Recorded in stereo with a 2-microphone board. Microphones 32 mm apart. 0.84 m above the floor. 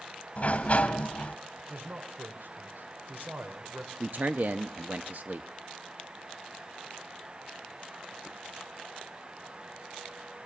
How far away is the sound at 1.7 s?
About 2.5 m.